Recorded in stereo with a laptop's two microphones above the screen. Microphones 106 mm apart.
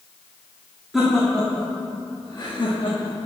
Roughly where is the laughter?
Centre.